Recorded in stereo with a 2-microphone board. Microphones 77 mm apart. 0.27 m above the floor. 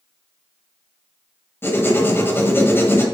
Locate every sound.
1.6 s writing: 30° left (ahead or behind), 1.4 m